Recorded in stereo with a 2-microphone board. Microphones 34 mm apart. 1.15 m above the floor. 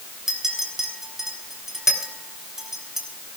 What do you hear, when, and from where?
0.3 s a clink: 15° right (ahead or behind), 4 m